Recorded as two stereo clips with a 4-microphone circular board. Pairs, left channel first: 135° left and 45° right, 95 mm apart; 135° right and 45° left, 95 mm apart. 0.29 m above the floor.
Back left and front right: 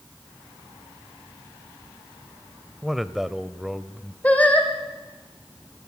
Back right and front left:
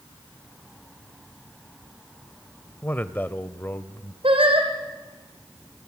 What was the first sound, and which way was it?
A man speaking, 125° right.